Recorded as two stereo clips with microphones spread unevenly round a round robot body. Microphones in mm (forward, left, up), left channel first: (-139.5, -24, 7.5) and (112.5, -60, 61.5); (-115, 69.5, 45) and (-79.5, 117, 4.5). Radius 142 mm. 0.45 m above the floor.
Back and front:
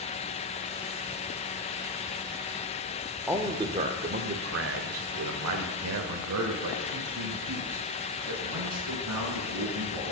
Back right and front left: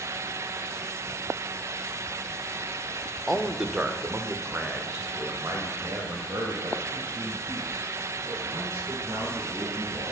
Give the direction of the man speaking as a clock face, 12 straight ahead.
9 o'clock.